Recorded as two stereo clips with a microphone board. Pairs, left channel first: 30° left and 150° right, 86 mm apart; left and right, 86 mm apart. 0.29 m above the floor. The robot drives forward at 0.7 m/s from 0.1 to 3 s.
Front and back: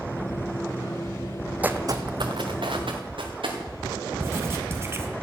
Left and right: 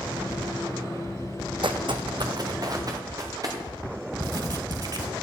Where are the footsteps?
80° right, 0.7 m; by 3.6 s 135° right, 3.5 m.